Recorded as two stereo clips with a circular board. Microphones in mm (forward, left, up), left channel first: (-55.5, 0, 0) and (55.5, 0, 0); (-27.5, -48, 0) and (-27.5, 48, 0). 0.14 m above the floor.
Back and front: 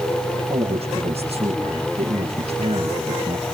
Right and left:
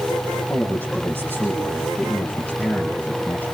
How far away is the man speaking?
About 6.5 m.